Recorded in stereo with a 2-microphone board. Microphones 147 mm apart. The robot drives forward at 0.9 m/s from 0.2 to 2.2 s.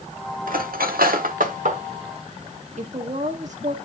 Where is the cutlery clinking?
70° right (ahead or behind), 1.2 m; by 1.8 s 55° right (ahead or behind), 1.4 m.